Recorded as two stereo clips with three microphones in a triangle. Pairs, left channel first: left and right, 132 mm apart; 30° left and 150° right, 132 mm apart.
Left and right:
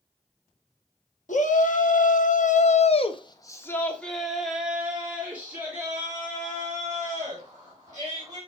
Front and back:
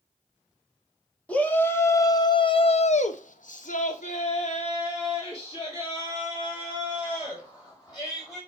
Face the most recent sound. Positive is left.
turn(degrees=-30)